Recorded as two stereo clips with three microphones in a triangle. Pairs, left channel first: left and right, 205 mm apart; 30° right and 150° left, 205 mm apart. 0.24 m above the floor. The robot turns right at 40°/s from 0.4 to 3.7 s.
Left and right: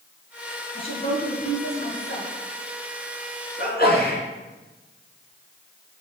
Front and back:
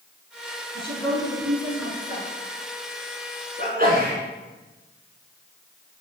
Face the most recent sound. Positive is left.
turn(degrees=115)